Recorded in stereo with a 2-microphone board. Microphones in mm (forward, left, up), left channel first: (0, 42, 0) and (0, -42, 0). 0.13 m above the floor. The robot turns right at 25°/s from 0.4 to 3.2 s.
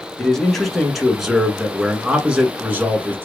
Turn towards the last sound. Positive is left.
turn(degrees=-25)  # may be behind; listen again after turning